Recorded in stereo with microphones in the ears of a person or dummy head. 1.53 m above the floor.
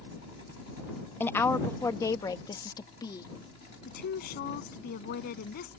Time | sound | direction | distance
1.2 | a woman speaking | 10° left (ahead or behind) | ?
3.9 | a woman speaking | 50° left (ahead or behind) | ?